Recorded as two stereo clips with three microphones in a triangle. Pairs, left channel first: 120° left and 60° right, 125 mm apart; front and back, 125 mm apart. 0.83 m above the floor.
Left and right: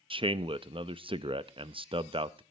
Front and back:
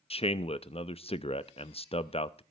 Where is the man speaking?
25° right, 0.6 m.